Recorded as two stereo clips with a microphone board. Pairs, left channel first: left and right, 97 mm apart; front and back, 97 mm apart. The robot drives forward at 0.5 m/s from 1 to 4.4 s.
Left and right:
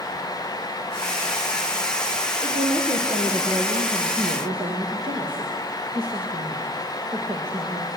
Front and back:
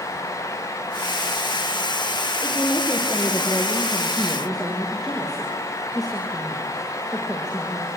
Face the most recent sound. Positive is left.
turn(degrees=-90)